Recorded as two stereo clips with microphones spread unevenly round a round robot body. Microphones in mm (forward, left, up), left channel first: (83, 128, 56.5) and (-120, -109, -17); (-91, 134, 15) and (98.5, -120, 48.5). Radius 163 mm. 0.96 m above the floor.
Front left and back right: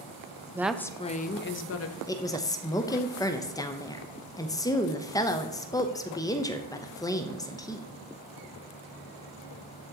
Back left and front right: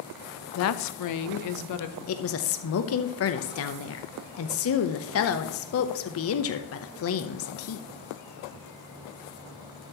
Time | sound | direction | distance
0.6 | a woman speaking | 160° left | 0.7 m
2.1 | a woman speaking | 140° left | 0.8 m